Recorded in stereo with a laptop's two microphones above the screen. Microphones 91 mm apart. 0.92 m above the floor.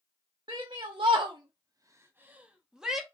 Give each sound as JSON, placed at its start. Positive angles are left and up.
{"t": 0.5, "sound": "a shout", "side_deg": -55, "distance_m": 0.8}